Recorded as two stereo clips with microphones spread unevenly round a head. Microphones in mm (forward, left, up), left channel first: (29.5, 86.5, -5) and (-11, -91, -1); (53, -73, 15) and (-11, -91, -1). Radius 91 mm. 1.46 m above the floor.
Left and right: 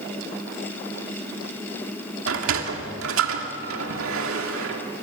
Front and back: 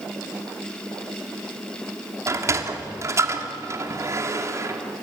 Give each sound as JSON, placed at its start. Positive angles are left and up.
{"t": 2.3, "sound": "a sliding door", "azimuth_deg": -115, "distance_m": 2.5}